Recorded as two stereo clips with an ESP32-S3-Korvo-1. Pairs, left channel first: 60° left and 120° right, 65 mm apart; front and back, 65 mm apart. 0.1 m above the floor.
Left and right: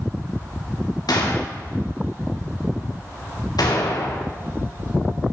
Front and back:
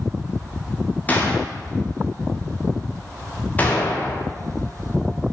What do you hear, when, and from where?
1.1 s a gunshot: 65° left, 5.5 m